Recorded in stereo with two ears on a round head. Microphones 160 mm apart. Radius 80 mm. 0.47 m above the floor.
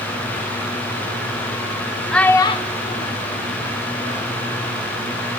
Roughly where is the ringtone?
I don't hear a ringtone.